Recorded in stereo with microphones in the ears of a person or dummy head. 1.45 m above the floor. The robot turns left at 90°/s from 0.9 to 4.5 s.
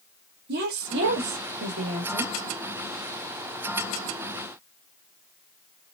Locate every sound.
0.5 s a woman speaking: 60° right, 1.1 m; by 2.3 s 170° left, 1.1 m